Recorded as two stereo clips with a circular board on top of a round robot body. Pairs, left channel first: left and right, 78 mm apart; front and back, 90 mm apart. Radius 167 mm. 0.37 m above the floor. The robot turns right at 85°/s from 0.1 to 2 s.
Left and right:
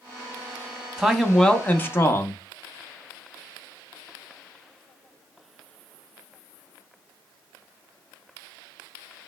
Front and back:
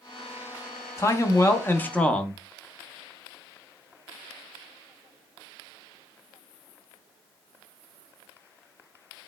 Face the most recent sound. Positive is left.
turn(degrees=65)